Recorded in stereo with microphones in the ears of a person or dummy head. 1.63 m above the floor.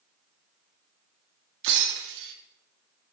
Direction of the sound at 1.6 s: 70° right (ahead or behind).